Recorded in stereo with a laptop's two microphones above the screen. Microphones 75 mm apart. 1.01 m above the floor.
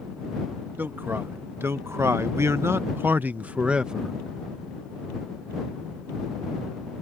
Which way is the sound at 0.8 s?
30° right (ahead or behind).